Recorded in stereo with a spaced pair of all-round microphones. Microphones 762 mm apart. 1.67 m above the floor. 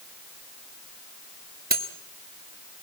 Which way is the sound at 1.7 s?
10° right (ahead or behind).